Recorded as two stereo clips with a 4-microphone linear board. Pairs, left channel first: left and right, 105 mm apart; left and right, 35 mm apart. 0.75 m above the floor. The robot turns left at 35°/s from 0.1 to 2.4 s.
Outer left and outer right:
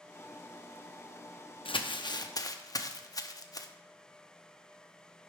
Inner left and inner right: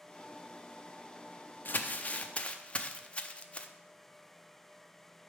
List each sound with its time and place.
1.6 s crumpling: 55° left (ahead or behind), 0.6 m; by 3.7 s 35° left (ahead or behind), 0.6 m